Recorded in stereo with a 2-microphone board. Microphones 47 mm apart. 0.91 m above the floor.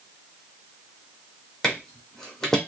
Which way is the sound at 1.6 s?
10° left (ahead or behind).